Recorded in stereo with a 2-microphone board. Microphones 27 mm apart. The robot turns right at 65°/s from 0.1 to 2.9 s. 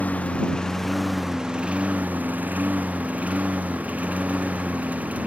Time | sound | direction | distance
0.0 | a lawn mower | 115° left | ?